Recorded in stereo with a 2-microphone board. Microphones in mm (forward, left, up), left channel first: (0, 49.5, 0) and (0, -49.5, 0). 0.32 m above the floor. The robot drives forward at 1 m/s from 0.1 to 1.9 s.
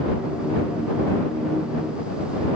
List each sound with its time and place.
Only background noise.